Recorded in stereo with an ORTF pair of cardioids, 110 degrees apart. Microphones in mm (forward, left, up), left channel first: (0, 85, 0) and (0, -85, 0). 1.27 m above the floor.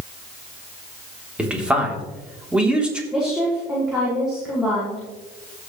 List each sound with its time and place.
1.4 s a man speaking: 5° right, 3.5 m
3.1 s a woman speaking: 5° right, 5.5 m